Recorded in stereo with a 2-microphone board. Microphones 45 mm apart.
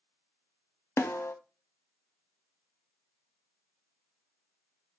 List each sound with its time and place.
1.0 s a snare drum: 75° left (ahead or behind), 0.6 m